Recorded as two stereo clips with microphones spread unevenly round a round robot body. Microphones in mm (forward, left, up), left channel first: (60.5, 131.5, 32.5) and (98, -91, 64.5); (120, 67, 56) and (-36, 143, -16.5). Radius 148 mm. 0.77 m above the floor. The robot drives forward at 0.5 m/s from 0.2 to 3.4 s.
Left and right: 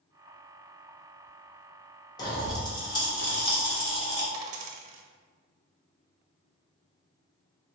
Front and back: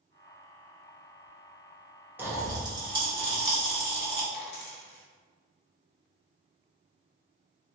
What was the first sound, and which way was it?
A pop, 140° left.